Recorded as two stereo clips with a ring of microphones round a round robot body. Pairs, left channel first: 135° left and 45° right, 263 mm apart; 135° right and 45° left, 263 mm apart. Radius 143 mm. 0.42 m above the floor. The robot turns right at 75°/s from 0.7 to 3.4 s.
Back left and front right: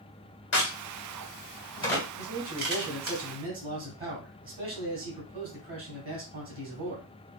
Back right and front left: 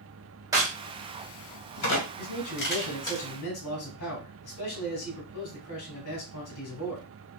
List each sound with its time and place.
0.5 s a crack: 120° left, 2.0 m; by 3.2 s 55° right, 2.0 m
2.2 s a man speaking: 165° left, 2 m; by 7.1 s 105° right, 2 m